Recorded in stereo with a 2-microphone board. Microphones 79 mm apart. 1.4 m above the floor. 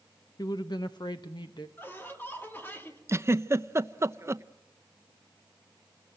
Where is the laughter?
25° left (ahead or behind), 2.5 m.